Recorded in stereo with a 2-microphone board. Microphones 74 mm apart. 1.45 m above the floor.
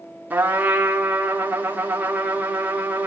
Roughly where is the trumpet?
Right.